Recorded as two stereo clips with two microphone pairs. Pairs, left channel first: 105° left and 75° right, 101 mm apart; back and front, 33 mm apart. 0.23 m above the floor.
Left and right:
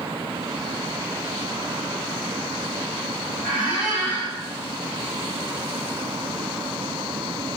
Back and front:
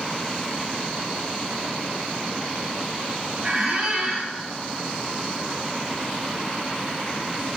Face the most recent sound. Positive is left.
turn(degrees=10)